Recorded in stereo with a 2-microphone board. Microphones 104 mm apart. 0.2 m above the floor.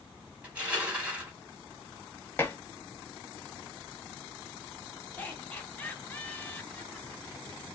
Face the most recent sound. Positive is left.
turn(degrees=15)  # may be behind; listen again after turning